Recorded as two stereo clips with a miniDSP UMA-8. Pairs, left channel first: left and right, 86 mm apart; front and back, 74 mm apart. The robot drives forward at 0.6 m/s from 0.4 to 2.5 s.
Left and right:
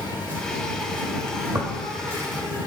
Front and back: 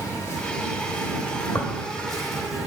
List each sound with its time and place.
0.0 s an insect: 35° right, 2.0 m; by 2.7 s 90° right, 1.5 m
1.6 s tearing paper: 45° right, 0.9 m; by 1.7 s 50° right, 0.9 m